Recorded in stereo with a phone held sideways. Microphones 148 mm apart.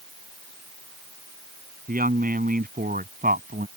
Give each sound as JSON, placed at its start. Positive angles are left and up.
{"t": 1.9, "sound": "a woman speaking", "side_deg": -75}